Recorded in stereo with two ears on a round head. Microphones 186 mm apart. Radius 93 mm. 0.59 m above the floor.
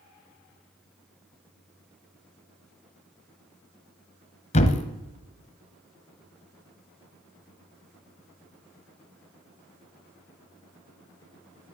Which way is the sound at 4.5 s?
35° left (ahead or behind).